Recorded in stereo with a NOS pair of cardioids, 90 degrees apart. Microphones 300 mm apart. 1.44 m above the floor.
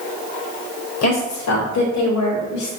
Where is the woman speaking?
60° left, 2.5 m; by 2.7 s 75° left, 3 m.